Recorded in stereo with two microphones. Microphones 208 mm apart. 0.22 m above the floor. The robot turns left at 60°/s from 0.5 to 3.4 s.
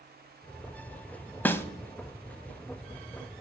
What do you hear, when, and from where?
1.4 s a snare drum: 10° left (ahead or behind), 0.5 m; by 1.6 s 15° left (ahead or behind), 0.5 m